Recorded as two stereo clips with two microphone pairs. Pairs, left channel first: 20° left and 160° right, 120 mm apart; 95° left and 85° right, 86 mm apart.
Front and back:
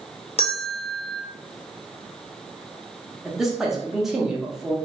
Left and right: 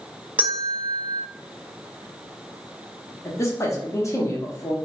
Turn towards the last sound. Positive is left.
turn(degrees=115)